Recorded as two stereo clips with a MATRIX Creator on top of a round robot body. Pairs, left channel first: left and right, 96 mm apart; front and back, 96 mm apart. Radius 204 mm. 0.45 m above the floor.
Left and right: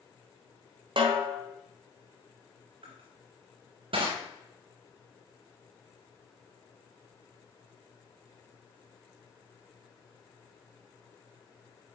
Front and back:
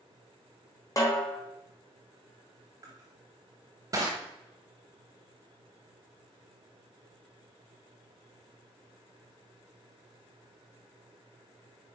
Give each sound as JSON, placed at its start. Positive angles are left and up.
{"t": 1.0, "sound": "a snare drum", "azimuth_deg": -55, "distance_m": 1.4}
{"t": 2.8, "sound": "crushing", "azimuth_deg": -125, "distance_m": 0.6}